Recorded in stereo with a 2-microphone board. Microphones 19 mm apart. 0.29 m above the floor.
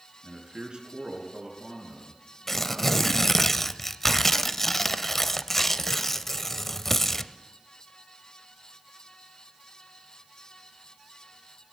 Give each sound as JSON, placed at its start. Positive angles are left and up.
{"t": 0.2, "sound": "a man speaking", "side_deg": -50, "distance_m": 4.5}
{"t": 2.5, "sound": "tearing paper", "side_deg": 20, "distance_m": 0.6}